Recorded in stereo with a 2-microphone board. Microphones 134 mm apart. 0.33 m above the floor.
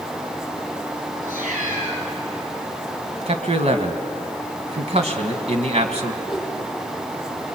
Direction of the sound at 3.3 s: 50° right (ahead or behind).